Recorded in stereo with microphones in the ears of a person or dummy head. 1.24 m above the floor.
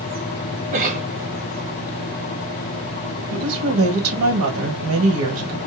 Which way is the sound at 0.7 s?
40° right (ahead or behind).